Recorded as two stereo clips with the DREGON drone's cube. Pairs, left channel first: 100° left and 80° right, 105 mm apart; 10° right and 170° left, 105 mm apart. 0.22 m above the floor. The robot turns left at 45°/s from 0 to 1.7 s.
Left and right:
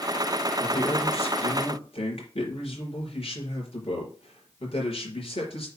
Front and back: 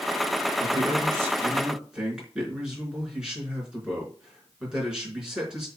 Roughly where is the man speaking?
Behind left.